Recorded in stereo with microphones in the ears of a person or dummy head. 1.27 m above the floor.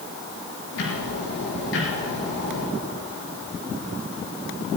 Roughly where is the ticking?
Left.